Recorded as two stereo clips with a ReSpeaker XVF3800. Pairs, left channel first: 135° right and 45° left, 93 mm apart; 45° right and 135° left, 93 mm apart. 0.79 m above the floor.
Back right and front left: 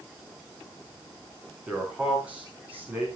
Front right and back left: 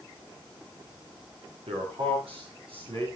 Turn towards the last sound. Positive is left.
turn(degrees=115)